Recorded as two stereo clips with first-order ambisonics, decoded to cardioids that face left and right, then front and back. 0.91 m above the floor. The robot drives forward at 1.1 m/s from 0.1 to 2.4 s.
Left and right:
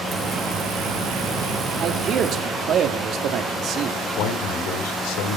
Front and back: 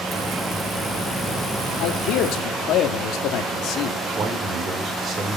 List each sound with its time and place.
1.8 s a man speaking: 30° right, 2 m; by 4.0 s 40° right, 1.7 m
4.2 s a man speaking: 110° left, 3.5 m